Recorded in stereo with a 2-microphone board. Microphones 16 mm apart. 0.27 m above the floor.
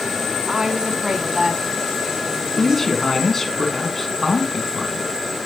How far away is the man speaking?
About 2 m.